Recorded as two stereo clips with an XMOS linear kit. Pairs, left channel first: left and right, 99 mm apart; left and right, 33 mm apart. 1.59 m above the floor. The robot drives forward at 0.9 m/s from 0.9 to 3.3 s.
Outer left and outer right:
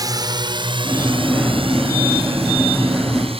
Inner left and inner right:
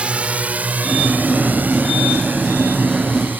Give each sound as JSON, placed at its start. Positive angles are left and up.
{"t": 0.0, "sound": "a drone", "side_deg": -40}